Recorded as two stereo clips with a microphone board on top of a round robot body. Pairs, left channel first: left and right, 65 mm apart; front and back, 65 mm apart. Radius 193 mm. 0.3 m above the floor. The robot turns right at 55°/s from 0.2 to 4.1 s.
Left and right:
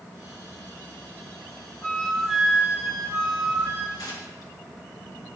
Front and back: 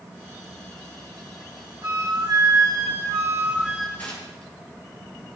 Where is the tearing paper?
70° left, 5 m; by 4.5 s 75° left, 5 m.